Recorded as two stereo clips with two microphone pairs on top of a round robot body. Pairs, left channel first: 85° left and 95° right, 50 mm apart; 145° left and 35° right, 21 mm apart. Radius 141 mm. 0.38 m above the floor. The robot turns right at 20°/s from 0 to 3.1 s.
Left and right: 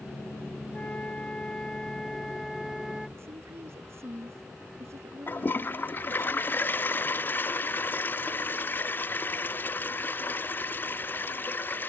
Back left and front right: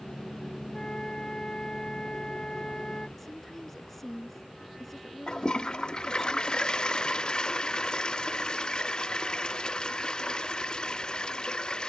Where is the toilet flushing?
115° left.